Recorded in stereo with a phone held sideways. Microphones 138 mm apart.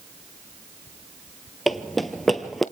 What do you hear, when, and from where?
1.7 s running footsteps: centre (ahead or behind), 1.3 m